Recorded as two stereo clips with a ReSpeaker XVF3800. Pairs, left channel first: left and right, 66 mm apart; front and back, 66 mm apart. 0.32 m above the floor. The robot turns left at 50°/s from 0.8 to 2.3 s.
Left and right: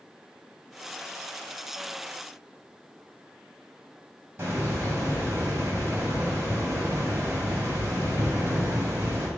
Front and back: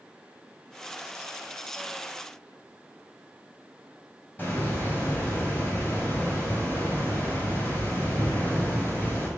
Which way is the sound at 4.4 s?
50° right.